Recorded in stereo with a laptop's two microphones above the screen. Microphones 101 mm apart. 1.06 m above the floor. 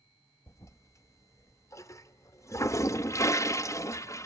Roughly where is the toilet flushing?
Left.